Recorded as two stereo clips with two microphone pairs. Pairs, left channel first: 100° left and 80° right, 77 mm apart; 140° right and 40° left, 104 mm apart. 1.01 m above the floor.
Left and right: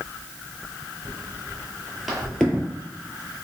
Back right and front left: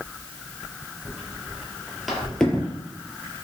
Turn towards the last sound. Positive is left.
turn(degrees=155)